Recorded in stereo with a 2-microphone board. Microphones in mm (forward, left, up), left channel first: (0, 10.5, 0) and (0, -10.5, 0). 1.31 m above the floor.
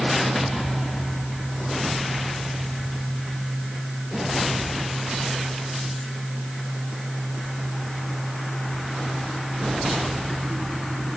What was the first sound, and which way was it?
Only background noise.